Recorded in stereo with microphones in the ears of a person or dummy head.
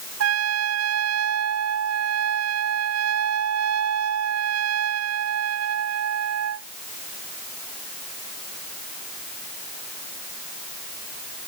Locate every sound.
0.2 s a trumpet: 75° right (ahead or behind)